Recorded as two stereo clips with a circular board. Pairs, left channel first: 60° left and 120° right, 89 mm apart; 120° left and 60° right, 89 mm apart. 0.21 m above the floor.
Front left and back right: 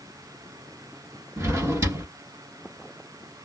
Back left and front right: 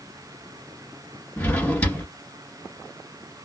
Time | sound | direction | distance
1.4 | a drawer | 165° right | 1.7 m